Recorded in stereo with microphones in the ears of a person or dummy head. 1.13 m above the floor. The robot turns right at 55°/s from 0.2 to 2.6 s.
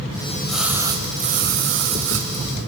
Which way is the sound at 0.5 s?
175° left.